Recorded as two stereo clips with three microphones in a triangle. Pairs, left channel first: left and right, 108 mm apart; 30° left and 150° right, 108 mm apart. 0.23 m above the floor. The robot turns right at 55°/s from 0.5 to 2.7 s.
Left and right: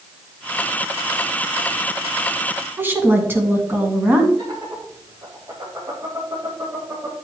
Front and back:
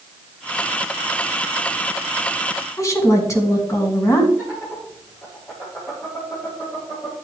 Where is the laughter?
35° right, 6 m.